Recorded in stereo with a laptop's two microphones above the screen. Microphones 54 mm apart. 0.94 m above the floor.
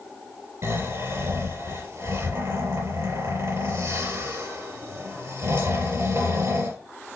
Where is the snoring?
70° right (ahead or behind), 3.5 m.